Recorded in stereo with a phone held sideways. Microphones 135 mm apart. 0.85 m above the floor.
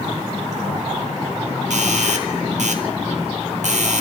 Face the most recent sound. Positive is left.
turn(degrees=-70)  # may be behind; listen again after turning